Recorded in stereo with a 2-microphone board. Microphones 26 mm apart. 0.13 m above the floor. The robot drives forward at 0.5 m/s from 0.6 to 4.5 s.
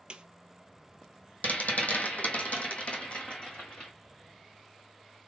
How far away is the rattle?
About 1.0 m.